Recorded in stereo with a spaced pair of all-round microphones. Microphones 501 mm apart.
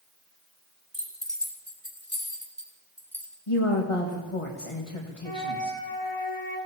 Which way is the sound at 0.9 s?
45° left (ahead or behind).